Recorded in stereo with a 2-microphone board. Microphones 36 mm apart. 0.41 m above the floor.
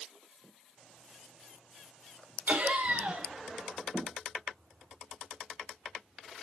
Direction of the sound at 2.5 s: 65° right (ahead or behind).